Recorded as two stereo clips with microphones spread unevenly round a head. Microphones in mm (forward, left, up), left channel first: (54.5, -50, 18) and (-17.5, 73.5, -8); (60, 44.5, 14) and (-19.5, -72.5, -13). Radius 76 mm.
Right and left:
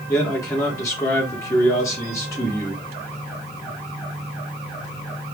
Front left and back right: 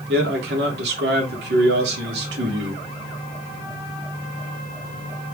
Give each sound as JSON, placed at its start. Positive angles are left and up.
{"t": 0.1, "sound": "a man speaking", "azimuth_deg": -135, "distance_m": 3.5}